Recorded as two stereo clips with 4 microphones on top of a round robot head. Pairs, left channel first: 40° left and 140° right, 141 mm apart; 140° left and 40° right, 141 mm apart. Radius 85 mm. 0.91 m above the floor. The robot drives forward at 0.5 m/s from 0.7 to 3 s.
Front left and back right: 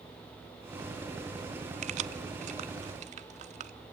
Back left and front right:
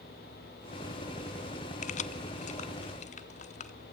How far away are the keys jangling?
About 0.5 m.